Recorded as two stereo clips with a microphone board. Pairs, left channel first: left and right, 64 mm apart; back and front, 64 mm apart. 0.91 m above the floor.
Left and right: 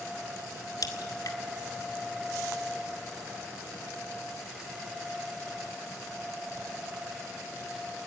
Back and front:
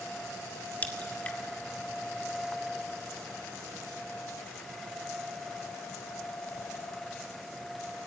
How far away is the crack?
About 2.0 m.